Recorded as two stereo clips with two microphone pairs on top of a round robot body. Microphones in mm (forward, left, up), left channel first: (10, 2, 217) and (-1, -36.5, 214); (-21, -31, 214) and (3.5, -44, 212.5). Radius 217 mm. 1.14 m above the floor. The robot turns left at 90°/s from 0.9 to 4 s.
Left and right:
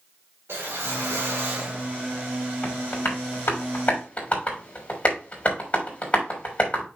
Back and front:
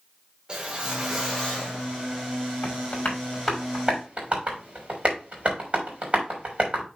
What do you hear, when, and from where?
0.5 s a whoosh: 90° right, 1.3 m; by 1.9 s straight behind, 1.3 m
2.6 s tapping: 140° left, 3 m; by 6.8 s 20° left, 3 m